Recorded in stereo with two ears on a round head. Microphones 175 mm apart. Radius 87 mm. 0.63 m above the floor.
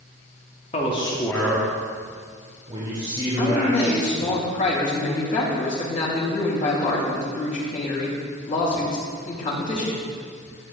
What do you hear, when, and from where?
0.7 s a man speaking: 35° left (ahead or behind), 1.3 m; by 4.4 s 35° right (ahead or behind), 4 m
3.4 s a man speaking: 40° left (ahead or behind), 3 m